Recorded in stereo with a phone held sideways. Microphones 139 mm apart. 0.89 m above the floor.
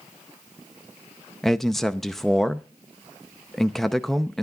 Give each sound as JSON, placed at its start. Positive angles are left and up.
{"t": 1.4, "sound": "a man speaking", "side_deg": 0, "distance_m": 0.6}